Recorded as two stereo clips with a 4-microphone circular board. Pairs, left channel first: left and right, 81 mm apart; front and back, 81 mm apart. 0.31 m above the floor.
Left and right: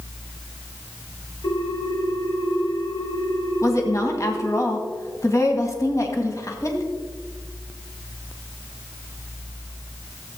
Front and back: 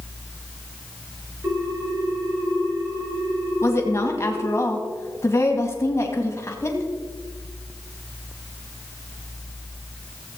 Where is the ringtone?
125° left, 4 m.